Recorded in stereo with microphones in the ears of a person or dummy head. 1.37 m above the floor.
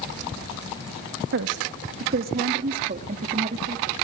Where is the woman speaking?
60° right (ahead or behind), 2 m; by 3.9 s 30° right (ahead or behind), 3 m.